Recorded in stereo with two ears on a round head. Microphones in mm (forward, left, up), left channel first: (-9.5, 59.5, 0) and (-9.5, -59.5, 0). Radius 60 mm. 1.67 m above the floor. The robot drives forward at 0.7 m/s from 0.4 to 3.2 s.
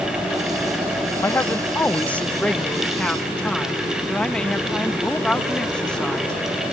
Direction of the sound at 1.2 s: 20° left (ahead or behind).